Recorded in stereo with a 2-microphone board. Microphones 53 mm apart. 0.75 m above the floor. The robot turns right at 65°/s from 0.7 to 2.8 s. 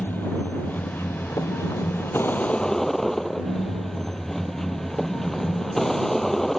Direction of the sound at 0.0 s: 35° left.